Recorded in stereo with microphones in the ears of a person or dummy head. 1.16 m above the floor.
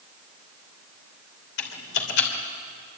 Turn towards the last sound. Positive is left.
turn(degrees=60)  # may be behind; listen again after turning